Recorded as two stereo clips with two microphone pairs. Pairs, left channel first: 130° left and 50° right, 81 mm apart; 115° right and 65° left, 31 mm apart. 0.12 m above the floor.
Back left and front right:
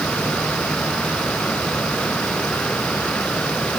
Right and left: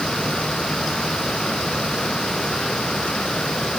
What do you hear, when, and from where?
Only background noise.